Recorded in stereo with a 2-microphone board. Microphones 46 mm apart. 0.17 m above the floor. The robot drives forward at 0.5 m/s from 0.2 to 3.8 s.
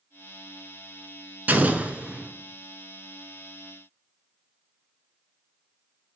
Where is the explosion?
40° right (ahead or behind), 0.5 m; by 2.3 s 25° right (ahead or behind), 0.8 m.